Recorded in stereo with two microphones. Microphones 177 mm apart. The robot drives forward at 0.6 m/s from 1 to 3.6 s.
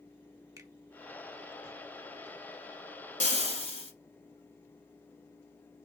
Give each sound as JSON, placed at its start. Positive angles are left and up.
{"t": 0.6, "sound": "a finger snap", "side_deg": -20, "distance_m": 0.8}
{"t": 3.2, "sound": "frying", "side_deg": 45, "distance_m": 0.9}